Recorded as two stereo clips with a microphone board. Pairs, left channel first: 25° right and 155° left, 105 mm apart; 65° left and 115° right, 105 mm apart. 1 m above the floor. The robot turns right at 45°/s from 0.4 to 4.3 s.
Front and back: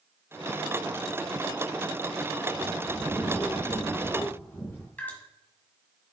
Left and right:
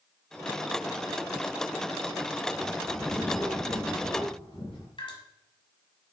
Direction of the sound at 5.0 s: 50° left.